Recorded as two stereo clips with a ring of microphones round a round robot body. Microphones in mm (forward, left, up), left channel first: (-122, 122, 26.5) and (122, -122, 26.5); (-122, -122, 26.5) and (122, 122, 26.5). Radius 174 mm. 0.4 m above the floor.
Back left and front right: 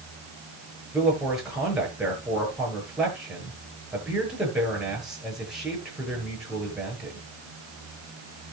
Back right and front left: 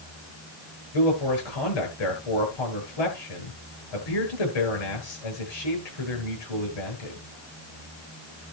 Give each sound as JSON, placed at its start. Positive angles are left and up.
{"t": 0.9, "sound": "a man speaking", "azimuth_deg": -135, "distance_m": 9.5}